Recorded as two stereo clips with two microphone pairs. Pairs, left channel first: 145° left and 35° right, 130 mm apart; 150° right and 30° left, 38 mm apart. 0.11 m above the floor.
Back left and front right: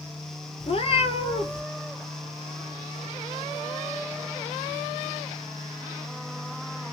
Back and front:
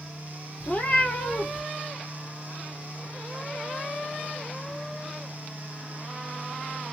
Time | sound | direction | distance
0.6 | a cat meowing | 170° left | 0.8 m